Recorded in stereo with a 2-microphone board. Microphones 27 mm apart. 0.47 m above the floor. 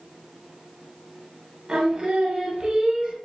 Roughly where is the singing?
Right.